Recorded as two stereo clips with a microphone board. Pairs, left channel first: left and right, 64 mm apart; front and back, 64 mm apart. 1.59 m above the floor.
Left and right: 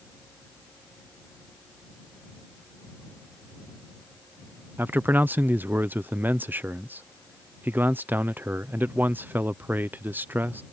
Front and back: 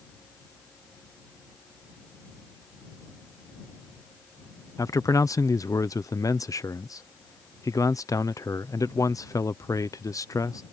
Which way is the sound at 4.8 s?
30° right.